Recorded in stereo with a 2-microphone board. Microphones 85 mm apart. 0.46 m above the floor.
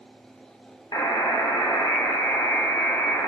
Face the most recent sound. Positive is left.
turn(degrees=50)  # may be behind; listen again after turning